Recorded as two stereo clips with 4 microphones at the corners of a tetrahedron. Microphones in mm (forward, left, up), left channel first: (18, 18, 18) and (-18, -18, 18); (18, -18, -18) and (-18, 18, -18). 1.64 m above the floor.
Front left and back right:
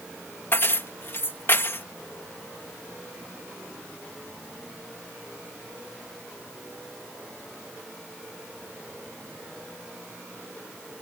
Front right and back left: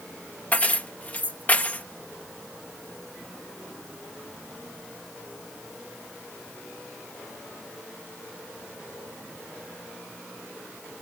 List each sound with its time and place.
0.5 s keys jangling: 10° left